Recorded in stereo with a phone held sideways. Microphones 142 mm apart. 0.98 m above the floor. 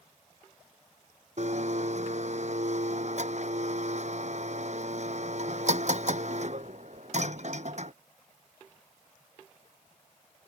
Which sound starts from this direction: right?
A blender, at 1.4 s.